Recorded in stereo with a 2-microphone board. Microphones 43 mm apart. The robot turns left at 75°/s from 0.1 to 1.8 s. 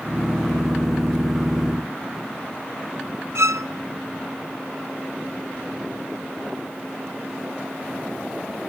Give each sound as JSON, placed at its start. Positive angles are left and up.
{"t": 3.4, "sound": "a violin", "side_deg": -85, "distance_m": 0.6}